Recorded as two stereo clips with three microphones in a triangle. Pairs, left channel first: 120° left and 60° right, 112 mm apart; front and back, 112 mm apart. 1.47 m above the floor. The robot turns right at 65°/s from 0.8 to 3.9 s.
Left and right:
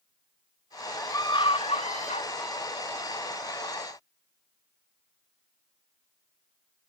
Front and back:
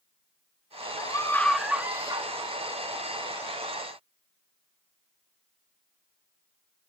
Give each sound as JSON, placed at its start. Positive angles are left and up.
{"t": 1.0, "sound": "a scream", "azimuth_deg": 50, "distance_m": 2.0}